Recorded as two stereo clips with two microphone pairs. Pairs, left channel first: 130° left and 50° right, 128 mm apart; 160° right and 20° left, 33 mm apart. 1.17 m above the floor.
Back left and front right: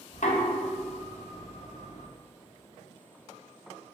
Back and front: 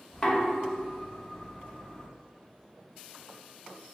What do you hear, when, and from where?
0.1 s knocking: 140° left, 0.7 m